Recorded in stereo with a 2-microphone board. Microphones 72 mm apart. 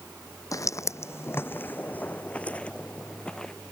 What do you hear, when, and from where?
0.5 s footsteps: 50° left (ahead or behind); by 3.5 s 10° left (ahead or behind)